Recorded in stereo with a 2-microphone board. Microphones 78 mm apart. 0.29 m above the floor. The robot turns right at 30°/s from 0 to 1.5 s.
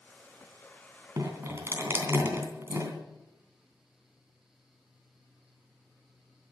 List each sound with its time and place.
1.2 s dripping: 40° right (ahead or behind), 3 m; by 2.9 s 30° right (ahead or behind), 3 m